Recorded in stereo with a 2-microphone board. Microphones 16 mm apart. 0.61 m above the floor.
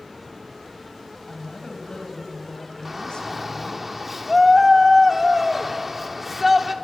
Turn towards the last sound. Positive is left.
turn(degrees=-15)  # may be behind; listen again after turning